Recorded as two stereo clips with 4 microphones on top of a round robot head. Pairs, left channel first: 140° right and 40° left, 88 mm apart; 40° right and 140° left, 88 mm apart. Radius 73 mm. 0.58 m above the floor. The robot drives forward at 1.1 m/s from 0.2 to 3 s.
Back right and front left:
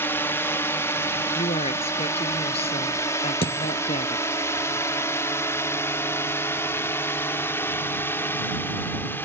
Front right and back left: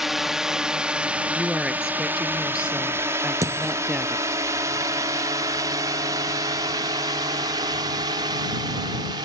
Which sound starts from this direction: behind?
A dropped coin, at 3.4 s.